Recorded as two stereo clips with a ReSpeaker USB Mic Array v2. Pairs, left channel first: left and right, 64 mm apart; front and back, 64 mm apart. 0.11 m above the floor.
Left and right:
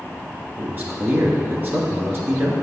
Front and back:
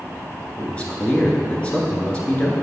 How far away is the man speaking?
About 1.5 m.